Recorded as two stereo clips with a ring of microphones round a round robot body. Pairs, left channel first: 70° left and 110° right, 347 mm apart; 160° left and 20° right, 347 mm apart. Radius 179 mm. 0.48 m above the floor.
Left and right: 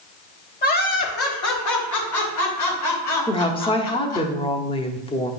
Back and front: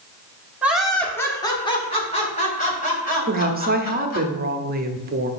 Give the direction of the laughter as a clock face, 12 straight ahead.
10 o'clock.